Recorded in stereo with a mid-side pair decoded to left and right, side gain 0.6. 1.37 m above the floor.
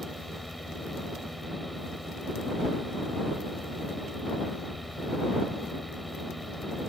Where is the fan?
5° right.